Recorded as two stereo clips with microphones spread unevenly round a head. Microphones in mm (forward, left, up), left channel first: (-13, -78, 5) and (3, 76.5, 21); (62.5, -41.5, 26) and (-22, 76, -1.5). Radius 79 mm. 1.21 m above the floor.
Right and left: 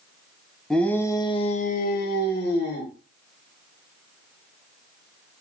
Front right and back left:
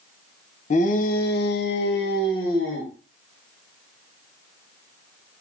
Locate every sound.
0.7 s a shout: 10° right, 0.8 m; by 2.9 s 105° right, 1.1 m